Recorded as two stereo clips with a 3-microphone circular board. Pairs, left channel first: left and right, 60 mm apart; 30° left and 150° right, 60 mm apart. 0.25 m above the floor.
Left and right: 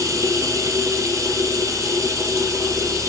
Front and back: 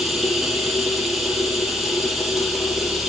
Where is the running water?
60° right, 6 m.